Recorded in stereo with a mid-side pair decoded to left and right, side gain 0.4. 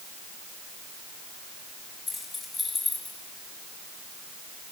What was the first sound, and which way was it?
Keys jangling, 25° left.